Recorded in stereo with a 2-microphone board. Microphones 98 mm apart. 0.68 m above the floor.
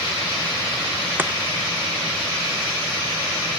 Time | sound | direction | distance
1.2 | chopping | 20° right (ahead or behind) | 0.9 m